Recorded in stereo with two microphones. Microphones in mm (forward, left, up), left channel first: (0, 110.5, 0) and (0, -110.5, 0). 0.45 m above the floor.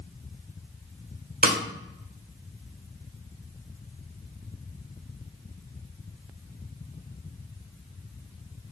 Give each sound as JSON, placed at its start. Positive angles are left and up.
{"t": 1.4, "sound": "a snare drum", "side_deg": -45, "distance_m": 0.9}